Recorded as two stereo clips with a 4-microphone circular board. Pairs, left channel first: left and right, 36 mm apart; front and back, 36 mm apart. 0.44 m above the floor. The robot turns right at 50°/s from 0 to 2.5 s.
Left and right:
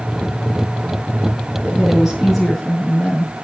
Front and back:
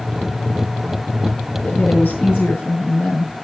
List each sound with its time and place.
1.6 s a woman speaking: 35° right, 5.5 m; by 3.3 s 10° left, 5.5 m